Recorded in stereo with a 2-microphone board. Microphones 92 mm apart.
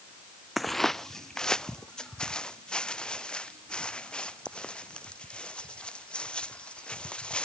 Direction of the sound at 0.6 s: Centre (ahead or behind).